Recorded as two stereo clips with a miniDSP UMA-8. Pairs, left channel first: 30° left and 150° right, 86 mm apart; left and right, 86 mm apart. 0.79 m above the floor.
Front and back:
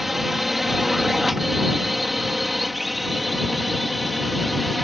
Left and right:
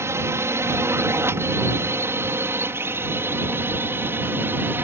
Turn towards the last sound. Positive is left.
turn(degrees=-60)